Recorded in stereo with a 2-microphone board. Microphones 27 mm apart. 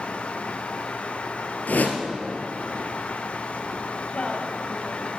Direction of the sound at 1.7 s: 85° left.